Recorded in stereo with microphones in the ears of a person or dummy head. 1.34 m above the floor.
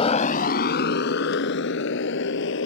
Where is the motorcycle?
35° left (ahead or behind); by 2.7 s 75° left (ahead or behind).